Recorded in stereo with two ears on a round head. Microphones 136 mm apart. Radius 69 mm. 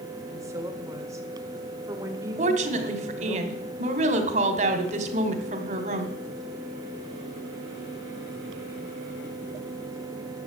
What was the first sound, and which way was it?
A woman speaking, 20° right (ahead or behind).